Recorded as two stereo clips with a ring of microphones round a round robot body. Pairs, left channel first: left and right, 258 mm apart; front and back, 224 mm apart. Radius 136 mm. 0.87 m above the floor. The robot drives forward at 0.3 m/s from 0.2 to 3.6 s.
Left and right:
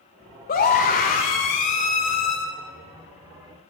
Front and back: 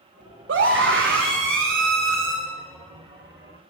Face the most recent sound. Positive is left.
turn(degrees=155)